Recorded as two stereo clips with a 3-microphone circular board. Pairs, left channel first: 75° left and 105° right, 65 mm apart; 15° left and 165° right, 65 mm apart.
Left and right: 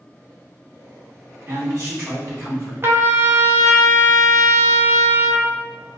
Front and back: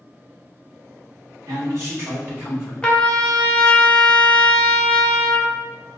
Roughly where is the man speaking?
Behind right.